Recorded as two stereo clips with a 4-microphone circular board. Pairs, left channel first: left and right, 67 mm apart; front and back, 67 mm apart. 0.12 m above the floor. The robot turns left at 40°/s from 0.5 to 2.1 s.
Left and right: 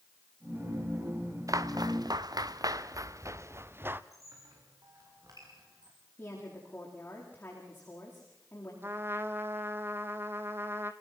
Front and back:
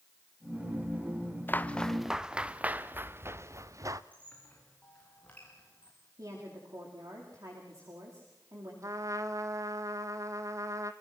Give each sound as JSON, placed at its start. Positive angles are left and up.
{"t": 1.5, "sound": "footsteps", "azimuth_deg": -55, "distance_m": 1.4}
{"t": 4.1, "sound": "a squeak", "azimuth_deg": -65, "distance_m": 7.0}
{"t": 6.2, "sound": "a woman speaking", "azimuth_deg": 150, "distance_m": 9.5}
{"t": 8.8, "sound": "a trumpet", "azimuth_deg": -145, "distance_m": 1.2}